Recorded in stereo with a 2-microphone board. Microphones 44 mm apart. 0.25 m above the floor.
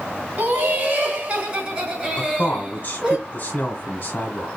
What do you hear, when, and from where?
0.4 s laughter: 30° right (ahead or behind), 2 m; by 3.2 s 10° right (ahead or behind), 3 m
2.2 s a man speaking: 35° left (ahead or behind), 1.2 m